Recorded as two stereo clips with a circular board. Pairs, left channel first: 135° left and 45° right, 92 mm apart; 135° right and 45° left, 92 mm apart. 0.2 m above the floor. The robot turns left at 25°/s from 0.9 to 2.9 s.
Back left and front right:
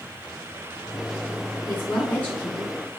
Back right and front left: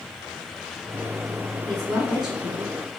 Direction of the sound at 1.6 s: 120° left.